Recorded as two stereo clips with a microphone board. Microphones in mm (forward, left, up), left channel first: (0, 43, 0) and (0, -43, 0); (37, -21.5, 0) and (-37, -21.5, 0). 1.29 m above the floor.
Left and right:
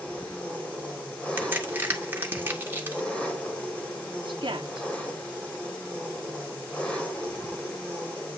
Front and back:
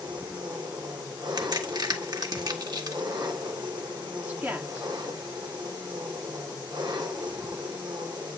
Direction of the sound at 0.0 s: 165° left.